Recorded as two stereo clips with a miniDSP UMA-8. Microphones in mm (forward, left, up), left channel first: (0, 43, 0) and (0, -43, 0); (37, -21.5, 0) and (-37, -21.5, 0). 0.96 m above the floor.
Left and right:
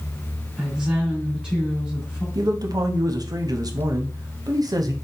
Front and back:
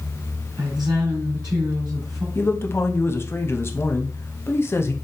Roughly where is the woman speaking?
Behind.